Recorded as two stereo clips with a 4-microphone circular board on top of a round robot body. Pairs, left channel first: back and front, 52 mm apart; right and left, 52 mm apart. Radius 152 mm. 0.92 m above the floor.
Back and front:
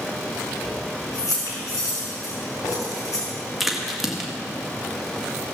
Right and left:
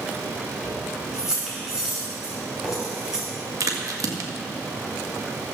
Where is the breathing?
I don't hear breathing.